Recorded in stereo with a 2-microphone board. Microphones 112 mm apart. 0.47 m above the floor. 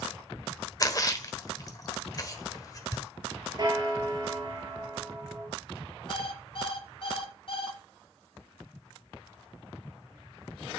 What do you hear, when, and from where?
0.8 s a splash: 30° left (ahead or behind), 1.2 m
3.6 s a bell: 40° right (ahead or behind), 2.5 m
6.1 s an alarm clock: 55° left (ahead or behind), 1.7 m